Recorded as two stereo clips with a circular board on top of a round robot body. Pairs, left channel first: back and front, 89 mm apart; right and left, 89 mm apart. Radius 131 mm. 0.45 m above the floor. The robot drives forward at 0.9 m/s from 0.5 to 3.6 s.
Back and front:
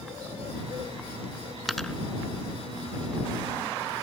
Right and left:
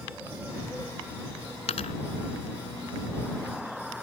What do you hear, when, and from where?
1.7 s a dropped coin: 90° right; by 1.9 s 100° right